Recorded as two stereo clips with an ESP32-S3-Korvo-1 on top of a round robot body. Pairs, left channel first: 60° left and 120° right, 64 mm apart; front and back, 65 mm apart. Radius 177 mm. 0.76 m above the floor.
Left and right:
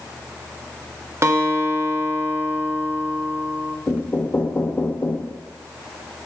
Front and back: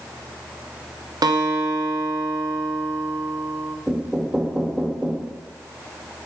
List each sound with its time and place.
1.2 s a guitar: 170° right, 1.0 m
3.9 s knocking: 105° left, 1.1 m